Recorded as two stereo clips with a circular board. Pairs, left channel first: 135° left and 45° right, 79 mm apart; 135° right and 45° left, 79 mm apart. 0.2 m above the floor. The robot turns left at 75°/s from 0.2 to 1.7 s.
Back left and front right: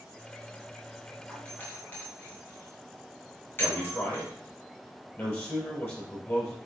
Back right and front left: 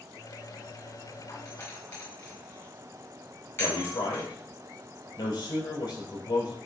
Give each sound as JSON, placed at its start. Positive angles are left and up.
{"t": 1.3, "sound": "a doorbell", "azimuth_deg": -145, "distance_m": 2.5}
{"t": 3.6, "sound": "a man speaking", "azimuth_deg": -165, "distance_m": 4.0}